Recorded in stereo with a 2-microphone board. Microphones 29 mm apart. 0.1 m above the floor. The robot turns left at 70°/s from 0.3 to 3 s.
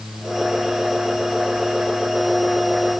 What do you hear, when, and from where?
Only background noise.